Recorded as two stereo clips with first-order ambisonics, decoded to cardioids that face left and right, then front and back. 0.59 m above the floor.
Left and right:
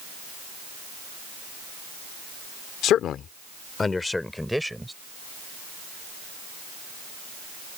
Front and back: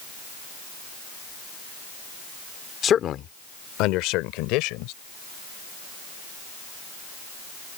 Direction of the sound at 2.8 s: 55° left.